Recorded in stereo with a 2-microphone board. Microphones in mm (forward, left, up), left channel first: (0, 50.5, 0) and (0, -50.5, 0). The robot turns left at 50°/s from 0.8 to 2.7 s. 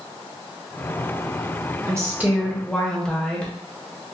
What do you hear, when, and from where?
1.9 s a woman speaking: 150° right, 1.0 m; by 3.5 s 170° left, 1.0 m